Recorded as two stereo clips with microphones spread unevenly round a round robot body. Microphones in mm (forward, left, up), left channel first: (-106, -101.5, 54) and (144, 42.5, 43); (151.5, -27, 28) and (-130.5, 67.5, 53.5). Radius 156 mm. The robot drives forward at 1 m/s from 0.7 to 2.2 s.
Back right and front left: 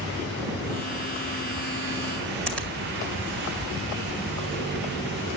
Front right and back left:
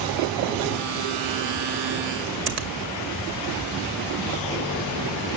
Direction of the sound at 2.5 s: 125° left.